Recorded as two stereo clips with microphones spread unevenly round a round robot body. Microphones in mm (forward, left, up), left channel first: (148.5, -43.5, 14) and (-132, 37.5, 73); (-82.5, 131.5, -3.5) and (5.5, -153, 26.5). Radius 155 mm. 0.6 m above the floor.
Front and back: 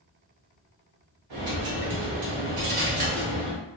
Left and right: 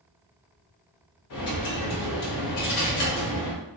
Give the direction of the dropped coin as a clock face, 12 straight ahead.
7 o'clock.